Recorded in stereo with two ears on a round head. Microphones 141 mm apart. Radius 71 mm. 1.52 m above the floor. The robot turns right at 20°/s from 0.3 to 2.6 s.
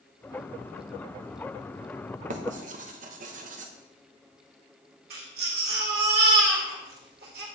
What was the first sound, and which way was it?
Writing, 50° right (ahead or behind).